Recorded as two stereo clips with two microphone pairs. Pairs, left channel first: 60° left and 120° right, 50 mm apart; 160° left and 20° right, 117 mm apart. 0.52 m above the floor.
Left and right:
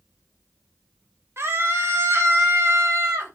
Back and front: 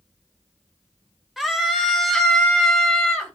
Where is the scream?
105° right, 2.5 m; by 3.3 s 115° right, 3.5 m.